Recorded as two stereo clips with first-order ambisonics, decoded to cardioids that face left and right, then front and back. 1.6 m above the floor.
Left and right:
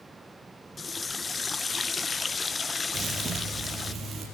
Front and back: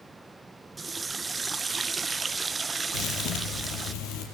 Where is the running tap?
130° left, 0.6 m.